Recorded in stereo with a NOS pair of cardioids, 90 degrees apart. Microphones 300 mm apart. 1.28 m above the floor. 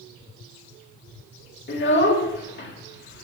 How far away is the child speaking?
About 2 m.